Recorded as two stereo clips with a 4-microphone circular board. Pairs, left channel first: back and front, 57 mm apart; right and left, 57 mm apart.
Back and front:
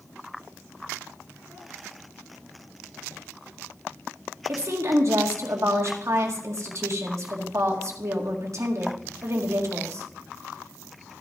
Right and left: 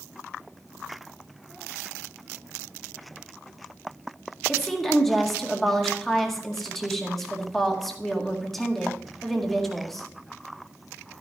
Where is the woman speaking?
5° right, 1.7 m.